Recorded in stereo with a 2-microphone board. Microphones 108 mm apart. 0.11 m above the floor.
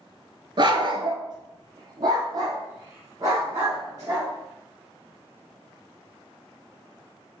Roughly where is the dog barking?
Right.